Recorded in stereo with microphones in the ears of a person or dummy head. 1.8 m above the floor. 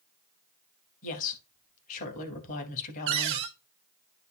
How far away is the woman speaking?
About 3 m.